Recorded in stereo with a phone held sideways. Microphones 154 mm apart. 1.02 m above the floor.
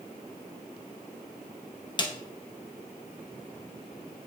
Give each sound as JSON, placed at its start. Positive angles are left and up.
{"t": 2.0, "sound": "a snare drum", "side_deg": 30, "distance_m": 0.6}